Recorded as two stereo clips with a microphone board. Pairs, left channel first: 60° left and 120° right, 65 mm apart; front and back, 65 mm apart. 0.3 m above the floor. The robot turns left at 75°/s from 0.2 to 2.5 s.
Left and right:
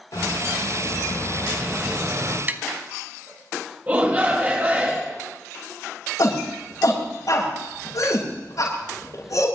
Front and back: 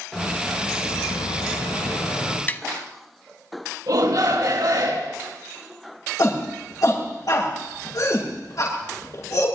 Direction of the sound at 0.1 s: 80° left.